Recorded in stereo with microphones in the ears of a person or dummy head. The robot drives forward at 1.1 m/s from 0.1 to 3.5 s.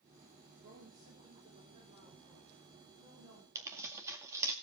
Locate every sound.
0.6 s a woman speaking: 35° right (ahead or behind), 3.5 m; by 3.5 s 20° right (ahead or behind), 6 m
3.5 s tearing paper: 20° right (ahead or behind), 2.0 m